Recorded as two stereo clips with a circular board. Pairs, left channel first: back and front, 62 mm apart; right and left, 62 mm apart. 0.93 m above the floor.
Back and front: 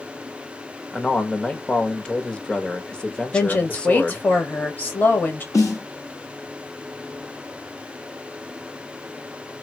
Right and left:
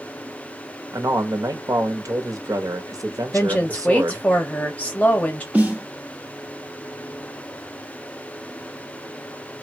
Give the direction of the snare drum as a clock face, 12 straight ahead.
7 o'clock.